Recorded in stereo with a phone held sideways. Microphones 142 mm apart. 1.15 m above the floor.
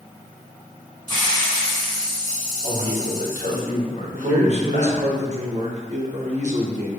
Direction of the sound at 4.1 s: 50° right (ahead or behind).